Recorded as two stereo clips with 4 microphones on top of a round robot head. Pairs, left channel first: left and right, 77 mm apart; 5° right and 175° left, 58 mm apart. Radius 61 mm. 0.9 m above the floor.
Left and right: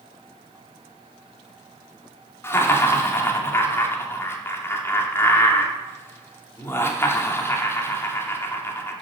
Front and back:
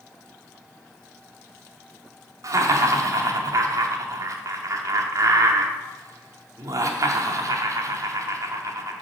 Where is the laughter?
150° left, 2 m.